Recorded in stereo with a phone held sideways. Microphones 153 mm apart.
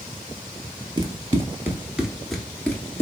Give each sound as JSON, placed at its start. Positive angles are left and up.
{"t": 1.0, "sound": "running footsteps", "side_deg": -25, "distance_m": 1.4}